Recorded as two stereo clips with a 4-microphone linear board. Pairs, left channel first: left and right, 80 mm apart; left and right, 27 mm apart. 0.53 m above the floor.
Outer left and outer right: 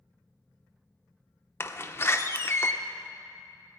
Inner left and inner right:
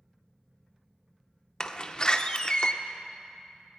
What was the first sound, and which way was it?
A door slam, 30° left (ahead or behind).